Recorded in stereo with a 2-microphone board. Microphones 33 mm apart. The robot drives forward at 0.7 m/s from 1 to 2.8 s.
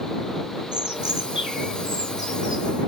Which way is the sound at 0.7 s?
30° right (ahead or behind).